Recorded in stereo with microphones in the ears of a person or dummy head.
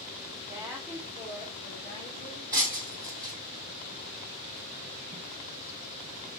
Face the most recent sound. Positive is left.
turn(degrees=-10)  # may be behind; listen again after turning